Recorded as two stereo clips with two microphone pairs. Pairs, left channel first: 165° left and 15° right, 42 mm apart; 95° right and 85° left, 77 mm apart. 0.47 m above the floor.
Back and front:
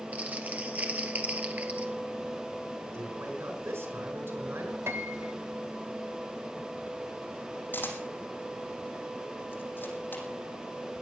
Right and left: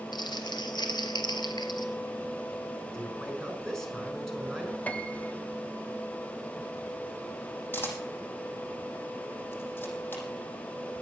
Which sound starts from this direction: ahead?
A man speaking, at 2.9 s.